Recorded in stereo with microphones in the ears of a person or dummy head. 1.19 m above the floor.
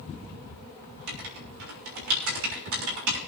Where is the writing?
70° right (ahead or behind), 3.5 m.